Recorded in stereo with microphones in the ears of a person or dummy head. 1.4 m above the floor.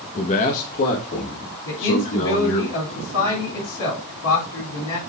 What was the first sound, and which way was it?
A man speaking, 30° left (ahead or behind).